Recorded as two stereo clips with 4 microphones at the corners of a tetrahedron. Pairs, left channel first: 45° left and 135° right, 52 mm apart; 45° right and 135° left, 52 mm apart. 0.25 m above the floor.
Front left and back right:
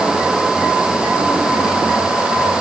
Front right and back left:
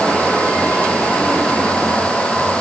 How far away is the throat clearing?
I don't hear throat clearing.